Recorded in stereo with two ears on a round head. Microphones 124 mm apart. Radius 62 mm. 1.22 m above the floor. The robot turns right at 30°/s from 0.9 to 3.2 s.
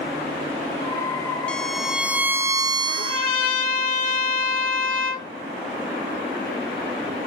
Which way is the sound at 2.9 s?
80° left.